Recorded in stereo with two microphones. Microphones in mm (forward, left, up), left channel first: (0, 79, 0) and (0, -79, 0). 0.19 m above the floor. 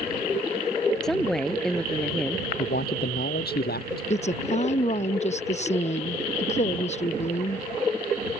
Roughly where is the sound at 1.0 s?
Centre.